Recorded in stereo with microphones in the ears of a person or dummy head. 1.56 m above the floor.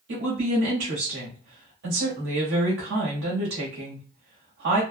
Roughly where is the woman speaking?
Right.